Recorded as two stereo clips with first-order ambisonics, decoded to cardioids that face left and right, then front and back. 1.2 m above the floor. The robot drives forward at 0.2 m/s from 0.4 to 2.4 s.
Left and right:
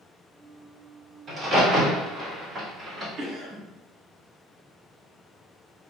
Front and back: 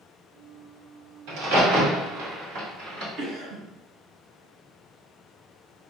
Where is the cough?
140° right, 1.0 m.